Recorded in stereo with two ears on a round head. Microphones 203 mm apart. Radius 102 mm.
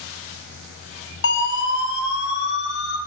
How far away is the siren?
About 7 m.